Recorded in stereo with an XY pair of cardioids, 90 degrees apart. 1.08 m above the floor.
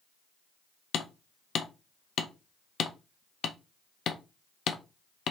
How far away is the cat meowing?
No cat meowing in this recording.